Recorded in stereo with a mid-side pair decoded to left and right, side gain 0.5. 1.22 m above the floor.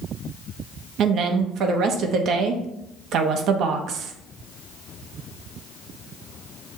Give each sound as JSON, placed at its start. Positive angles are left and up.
{"t": 1.0, "sound": "a woman speaking", "azimuth_deg": -65, "distance_m": 0.9}